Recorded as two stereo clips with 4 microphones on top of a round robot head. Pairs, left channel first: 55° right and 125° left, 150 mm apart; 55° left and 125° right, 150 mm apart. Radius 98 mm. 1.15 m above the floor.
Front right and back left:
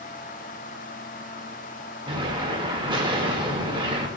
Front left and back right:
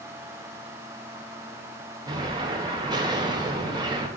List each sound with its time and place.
2.1 s an explosion: straight behind, 0.7 m